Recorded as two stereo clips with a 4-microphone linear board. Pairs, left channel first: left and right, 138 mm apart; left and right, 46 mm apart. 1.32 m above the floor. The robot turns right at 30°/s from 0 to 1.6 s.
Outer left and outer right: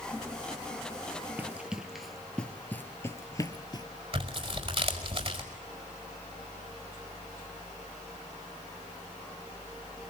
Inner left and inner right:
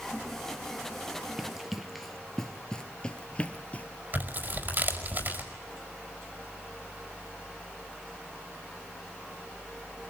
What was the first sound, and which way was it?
Running footsteps, 15° right (ahead or behind).